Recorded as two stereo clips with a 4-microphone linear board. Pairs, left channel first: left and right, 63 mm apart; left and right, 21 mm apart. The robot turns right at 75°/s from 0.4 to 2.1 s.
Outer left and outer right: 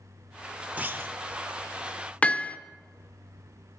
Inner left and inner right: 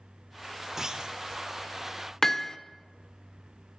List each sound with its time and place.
0.8 s a clunk: 20° right (ahead or behind), 0.8 m; by 1.2 s 45° right (ahead or behind), 0.8 m
2.2 s hammering: 20° left (ahead or behind), 0.7 m